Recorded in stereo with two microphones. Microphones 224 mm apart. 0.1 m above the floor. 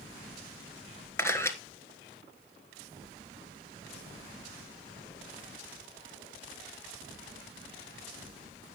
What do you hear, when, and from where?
1.2 s a camera shutter: 10° left (ahead or behind), 1.4 m